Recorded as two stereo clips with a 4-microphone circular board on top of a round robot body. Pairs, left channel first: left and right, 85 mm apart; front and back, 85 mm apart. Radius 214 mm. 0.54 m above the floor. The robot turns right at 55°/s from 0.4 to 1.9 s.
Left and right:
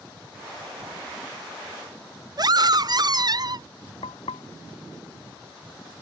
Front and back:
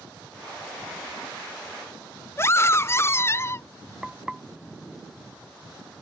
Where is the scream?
60° right.